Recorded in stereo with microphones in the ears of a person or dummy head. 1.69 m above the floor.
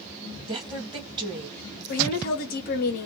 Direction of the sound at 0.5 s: 25° right (ahead or behind).